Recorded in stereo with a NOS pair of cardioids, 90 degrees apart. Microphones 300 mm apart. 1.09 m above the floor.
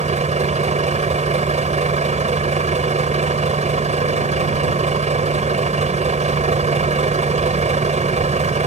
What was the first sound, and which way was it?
A vehicle, 25° right.